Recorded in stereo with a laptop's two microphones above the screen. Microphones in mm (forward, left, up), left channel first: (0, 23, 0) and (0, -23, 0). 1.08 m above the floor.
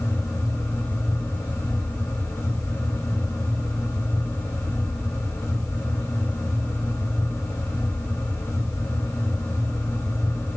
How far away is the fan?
About 1.4 m.